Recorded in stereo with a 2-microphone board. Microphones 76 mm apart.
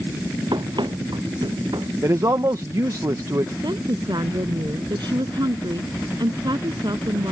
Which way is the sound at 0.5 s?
80° right.